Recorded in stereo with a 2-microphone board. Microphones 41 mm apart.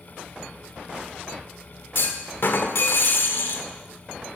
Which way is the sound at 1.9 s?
65° left (ahead or behind).